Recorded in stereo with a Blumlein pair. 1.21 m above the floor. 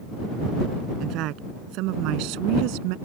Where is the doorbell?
I don't hear a doorbell.